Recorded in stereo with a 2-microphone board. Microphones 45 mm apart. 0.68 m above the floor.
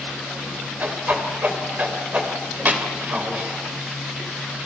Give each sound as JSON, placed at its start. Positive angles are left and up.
{"t": 0.8, "sound": "a whoosh", "side_deg": -35, "distance_m": 3.0}